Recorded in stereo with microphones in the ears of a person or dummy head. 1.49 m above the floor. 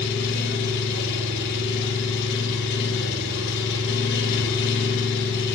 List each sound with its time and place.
0.0 s an engine running: 70° left (ahead or behind), 8 m